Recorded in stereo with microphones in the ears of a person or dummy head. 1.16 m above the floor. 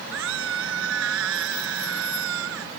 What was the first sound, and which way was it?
A scream, 75° right (ahead or behind).